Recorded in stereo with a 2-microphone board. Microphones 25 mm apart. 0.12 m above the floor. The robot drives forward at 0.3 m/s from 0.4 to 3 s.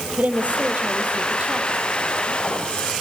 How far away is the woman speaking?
About 4 m.